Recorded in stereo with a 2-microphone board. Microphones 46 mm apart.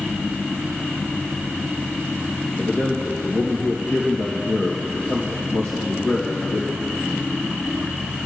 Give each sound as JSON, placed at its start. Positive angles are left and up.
{"t": 2.6, "sound": "a man speaking", "side_deg": 65, "distance_m": 3.5}